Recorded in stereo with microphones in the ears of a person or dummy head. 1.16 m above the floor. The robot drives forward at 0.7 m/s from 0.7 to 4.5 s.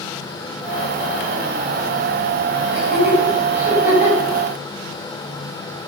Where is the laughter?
10° right (ahead or behind), 7.5 m.